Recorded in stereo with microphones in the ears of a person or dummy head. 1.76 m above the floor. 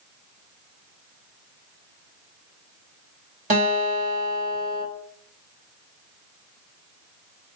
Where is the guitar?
40° right (ahead or behind), 3 m.